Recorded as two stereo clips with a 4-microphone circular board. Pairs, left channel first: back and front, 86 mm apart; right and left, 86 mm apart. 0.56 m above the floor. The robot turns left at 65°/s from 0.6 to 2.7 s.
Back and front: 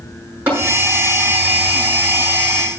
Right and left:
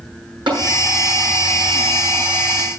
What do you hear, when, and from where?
0.5 s tapping: 65° left, 7.5 m